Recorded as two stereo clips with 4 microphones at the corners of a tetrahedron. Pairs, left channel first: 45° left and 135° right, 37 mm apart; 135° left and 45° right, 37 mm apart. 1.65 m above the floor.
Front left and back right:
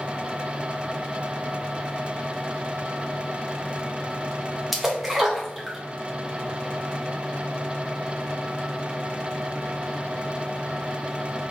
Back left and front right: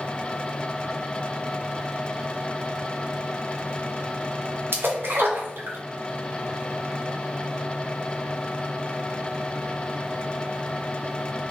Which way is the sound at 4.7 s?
50° right.